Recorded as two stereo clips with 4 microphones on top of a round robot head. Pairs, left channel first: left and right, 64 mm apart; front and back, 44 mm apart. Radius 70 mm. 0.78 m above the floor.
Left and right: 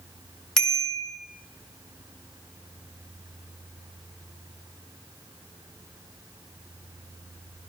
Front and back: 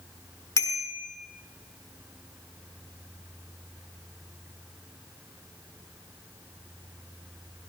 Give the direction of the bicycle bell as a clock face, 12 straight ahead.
12 o'clock.